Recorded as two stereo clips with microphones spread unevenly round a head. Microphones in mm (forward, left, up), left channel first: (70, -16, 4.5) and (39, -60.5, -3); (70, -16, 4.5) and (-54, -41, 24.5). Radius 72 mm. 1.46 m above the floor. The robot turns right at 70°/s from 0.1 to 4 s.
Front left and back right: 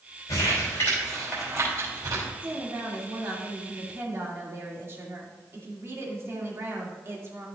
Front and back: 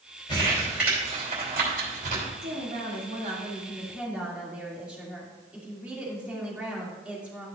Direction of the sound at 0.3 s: 75° left.